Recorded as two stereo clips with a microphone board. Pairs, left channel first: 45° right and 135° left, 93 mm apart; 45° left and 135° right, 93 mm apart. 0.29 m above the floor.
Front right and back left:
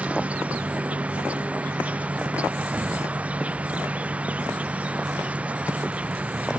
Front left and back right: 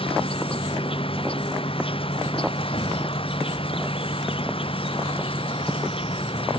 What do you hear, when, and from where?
0.0 s an insect: 60° left